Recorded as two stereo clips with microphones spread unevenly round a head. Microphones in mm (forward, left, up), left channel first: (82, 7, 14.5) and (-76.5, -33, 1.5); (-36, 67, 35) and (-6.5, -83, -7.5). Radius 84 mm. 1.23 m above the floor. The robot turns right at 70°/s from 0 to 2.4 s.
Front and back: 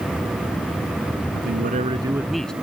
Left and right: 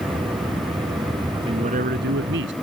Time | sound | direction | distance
1.3 | a man speaking | 145° right | ?